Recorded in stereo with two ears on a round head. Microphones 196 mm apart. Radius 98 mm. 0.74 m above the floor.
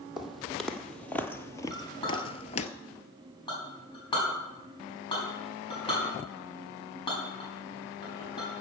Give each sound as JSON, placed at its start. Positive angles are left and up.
{"t": 0.2, "sound": "footsteps", "side_deg": 0, "distance_m": 1.4}
{"t": 1.7, "sound": "a clink", "side_deg": 20, "distance_m": 5.0}